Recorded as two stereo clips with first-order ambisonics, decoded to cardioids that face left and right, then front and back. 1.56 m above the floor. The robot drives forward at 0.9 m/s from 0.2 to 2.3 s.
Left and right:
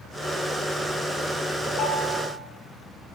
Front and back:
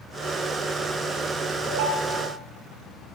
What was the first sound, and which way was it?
A ringtone, 155° left.